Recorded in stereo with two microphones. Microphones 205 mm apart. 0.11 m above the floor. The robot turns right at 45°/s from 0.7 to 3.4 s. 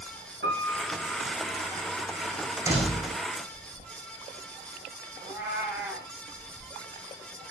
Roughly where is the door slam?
Centre.